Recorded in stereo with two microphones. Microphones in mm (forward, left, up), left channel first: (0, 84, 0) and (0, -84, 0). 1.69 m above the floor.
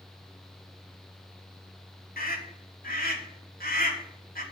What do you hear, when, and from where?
2.2 s a scream: 60° left (ahead or behind), 3 m